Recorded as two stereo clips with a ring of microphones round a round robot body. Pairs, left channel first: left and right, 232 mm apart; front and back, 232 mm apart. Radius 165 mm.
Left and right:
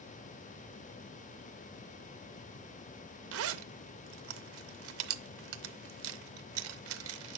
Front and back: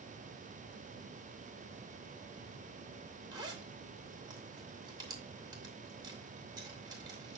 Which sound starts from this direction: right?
A zipper, at 3.3 s.